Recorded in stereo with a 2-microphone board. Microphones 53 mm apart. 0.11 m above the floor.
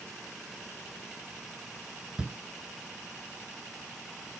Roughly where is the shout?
Right.